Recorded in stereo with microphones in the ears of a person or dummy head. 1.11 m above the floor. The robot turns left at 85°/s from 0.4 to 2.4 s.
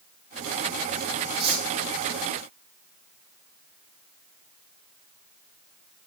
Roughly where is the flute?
No flute in this recording.